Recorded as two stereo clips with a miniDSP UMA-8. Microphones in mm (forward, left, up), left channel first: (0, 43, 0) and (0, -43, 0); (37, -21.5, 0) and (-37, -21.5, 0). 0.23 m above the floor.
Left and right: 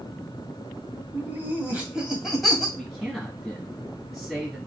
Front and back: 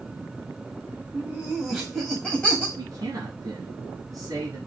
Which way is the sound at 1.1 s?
125° right.